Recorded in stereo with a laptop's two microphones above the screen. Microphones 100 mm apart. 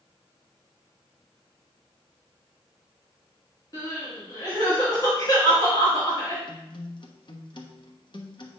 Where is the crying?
35° left (ahead or behind), 3 m.